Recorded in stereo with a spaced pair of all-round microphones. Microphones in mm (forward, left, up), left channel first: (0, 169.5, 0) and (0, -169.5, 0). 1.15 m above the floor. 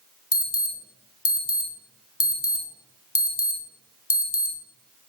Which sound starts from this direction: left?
An alarm, at 0.3 s.